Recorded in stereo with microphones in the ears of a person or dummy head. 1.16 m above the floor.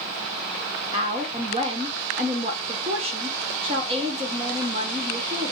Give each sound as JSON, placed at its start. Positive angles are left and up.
{"t": 0.9, "sound": "a woman speaking", "side_deg": -25, "distance_m": 0.5}